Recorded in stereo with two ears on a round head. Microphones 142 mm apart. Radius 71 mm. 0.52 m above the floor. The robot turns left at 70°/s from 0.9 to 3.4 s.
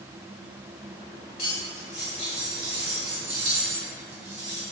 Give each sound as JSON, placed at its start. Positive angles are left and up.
{"t": 1.4, "sound": "cutlery clinking", "azimuth_deg": 65, "distance_m": 1.2}